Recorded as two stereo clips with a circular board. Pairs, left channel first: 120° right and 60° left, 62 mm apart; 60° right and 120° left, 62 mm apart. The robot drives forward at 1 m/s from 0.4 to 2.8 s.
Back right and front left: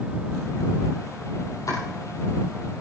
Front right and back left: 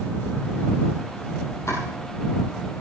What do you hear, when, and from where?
1.7 s chopping: 95° right, 4.5 m; by 1.8 s 100° right, 4.5 m